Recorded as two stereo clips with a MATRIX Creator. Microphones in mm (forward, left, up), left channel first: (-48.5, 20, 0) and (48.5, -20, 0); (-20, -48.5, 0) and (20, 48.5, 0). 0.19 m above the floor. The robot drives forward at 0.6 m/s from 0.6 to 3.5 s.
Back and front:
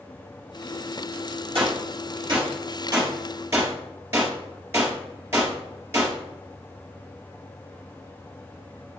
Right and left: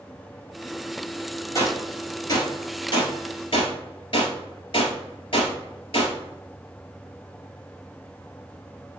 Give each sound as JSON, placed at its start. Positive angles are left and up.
{"t": 1.6, "sound": "a gunshot", "azimuth_deg": -55, "distance_m": 2.0}